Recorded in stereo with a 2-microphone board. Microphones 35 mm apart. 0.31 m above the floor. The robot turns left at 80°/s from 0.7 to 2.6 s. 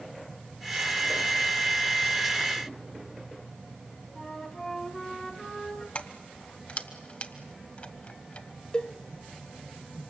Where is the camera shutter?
I don't hear a camera shutter.